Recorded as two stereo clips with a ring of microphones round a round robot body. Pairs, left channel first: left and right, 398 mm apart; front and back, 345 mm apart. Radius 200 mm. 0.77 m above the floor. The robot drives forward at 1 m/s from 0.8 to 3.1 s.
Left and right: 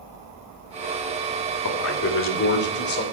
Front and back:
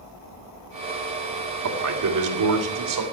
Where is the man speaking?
140° left, 2.5 m; by 3.0 s 155° left, 3.5 m.